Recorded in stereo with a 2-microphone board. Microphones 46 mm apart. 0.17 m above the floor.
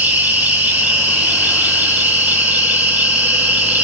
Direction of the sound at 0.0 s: 35° right (ahead or behind).